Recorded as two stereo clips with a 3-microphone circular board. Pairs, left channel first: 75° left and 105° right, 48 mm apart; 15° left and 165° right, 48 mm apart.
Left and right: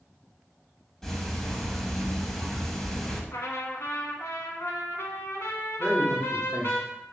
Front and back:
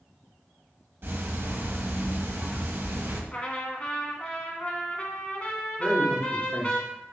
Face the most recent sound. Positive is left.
turn(degrees=20)